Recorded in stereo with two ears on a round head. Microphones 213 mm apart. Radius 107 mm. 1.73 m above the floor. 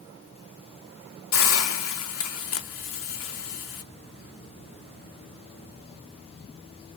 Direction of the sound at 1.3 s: 70° left (ahead or behind).